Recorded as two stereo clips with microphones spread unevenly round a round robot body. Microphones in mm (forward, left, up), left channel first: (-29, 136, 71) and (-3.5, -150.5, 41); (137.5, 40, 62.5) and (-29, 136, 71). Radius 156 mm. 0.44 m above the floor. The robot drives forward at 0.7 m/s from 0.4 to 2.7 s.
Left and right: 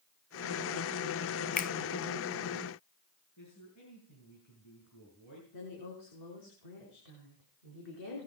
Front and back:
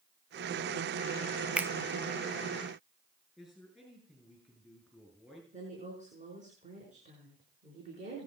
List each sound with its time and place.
1.6 s a finger snap: 65° left, 0.5 m; by 1.7 s 100° left, 0.5 m
3.4 s a man speaking: 60° left, 6.5 m
5.5 s a woman speaking: 95° left, 6 m